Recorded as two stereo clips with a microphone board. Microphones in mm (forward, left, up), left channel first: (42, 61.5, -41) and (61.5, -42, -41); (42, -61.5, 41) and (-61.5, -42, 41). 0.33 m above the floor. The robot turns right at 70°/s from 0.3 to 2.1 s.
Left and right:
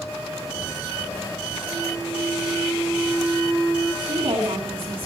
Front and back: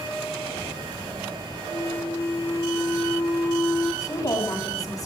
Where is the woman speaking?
65° right, 3 m.